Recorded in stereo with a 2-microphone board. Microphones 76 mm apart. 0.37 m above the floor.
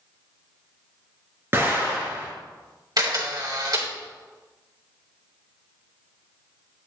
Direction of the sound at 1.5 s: 35° right (ahead or behind).